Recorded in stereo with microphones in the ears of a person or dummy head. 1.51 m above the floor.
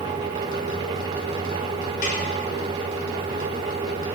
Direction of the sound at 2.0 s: 55° left (ahead or behind).